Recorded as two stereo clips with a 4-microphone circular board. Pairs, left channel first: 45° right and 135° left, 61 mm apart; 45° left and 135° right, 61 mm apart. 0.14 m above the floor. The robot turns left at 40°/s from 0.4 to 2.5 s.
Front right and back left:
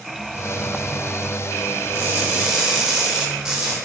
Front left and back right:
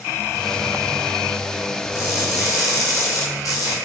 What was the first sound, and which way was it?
Crushing, 80° left.